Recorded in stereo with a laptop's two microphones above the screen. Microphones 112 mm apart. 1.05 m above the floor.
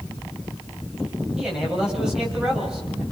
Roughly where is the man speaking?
Centre.